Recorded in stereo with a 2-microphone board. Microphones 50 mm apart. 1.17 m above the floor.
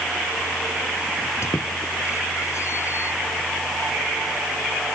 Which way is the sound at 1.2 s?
60° left (ahead or behind).